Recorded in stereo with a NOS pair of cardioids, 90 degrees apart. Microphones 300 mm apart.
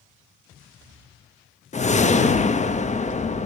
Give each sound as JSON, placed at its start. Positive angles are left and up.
{"t": 1.7, "sound": "a whoosh", "azimuth_deg": 25, "distance_m": 1.0}